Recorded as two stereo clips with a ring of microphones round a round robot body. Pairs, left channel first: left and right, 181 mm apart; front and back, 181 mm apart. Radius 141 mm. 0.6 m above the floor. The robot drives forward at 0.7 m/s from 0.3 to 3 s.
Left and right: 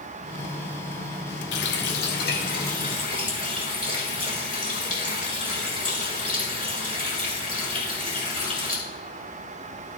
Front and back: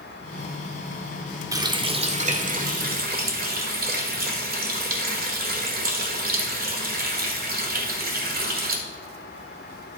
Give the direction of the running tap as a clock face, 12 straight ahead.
8 o'clock.